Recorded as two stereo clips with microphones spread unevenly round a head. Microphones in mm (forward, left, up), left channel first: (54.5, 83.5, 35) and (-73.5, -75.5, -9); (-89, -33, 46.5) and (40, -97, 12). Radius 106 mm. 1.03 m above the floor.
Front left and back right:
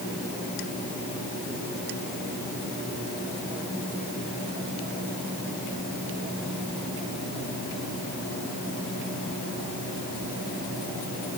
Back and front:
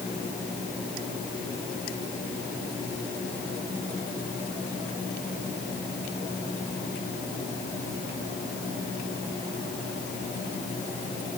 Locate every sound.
Only background noise.